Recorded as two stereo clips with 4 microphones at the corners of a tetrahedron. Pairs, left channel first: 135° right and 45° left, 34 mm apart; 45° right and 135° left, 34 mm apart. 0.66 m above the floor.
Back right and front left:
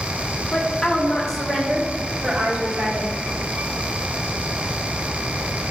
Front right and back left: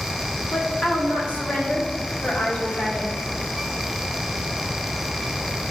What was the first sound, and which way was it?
A woman speaking, 85° right.